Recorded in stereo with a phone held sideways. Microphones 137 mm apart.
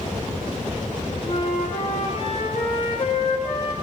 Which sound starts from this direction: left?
A flute, at 1.3 s.